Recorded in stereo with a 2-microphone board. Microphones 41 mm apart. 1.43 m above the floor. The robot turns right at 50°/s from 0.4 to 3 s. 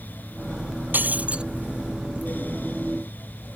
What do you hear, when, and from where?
0.9 s breaking glass: 50° right (ahead or behind); by 1.4 s 25° right (ahead or behind)